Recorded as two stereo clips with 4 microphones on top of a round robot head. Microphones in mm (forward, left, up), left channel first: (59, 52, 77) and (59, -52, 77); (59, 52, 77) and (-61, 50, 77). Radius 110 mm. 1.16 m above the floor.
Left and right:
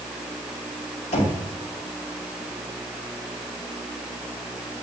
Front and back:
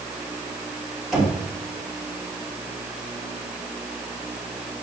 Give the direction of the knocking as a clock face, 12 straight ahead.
9 o'clock.